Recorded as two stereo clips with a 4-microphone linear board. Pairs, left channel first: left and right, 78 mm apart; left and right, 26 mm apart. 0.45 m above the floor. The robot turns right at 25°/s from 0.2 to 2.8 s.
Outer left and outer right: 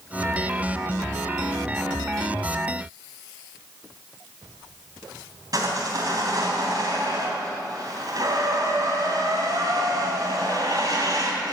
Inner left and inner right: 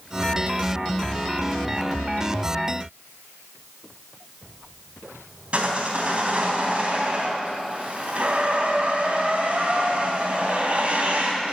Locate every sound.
5.5 s sawing: 50° right (ahead or behind), 3.5 m